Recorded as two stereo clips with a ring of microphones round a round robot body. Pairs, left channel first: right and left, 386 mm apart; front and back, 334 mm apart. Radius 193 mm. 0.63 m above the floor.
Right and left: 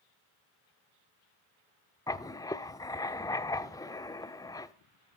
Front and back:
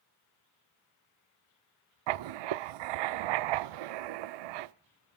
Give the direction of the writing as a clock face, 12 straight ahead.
6 o'clock.